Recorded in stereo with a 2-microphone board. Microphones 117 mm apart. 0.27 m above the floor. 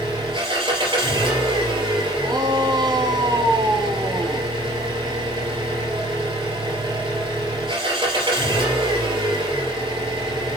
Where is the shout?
40° right (ahead or behind), 1.6 m.